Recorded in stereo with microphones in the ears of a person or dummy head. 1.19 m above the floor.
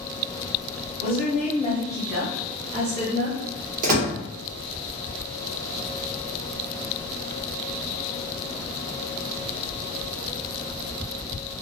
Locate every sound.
1.0 s a woman speaking: 45° left (ahead or behind), 0.8 m; by 3.4 s 50° right (ahead or behind), 0.8 m
3.8 s a door slam: 50° right (ahead or behind), 0.8 m